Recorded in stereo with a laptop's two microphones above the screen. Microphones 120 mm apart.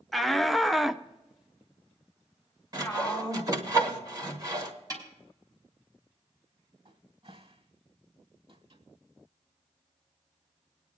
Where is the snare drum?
35° right (ahead or behind), 3 m.